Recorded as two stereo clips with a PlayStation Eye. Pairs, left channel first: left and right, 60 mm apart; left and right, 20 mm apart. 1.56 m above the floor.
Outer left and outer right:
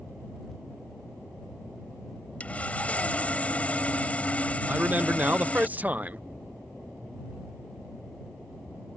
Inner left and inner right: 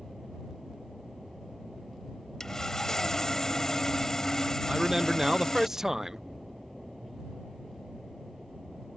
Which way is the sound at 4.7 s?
25° right (ahead or behind).